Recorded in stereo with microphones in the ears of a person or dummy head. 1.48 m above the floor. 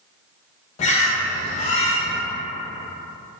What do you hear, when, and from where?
0.8 s a bird: 35° left (ahead or behind), 0.5 m